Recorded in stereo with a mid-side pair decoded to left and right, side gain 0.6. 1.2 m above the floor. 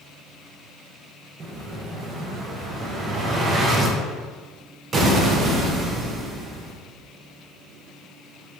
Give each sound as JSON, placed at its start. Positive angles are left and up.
{"t": 1.4, "sound": "an explosion", "azimuth_deg": -35, "distance_m": 0.7}